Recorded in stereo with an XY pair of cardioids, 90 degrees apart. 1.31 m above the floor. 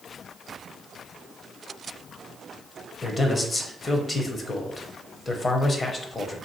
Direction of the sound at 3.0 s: 30° left.